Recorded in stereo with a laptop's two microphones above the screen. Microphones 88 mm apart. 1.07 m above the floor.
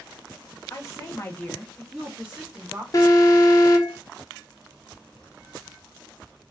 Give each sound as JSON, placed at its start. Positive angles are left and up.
{"t": 0.7, "sound": "a woman speaking", "side_deg": 40, "distance_m": 0.8}
{"t": 2.9, "sound": "an alarm", "side_deg": 40, "distance_m": 0.7}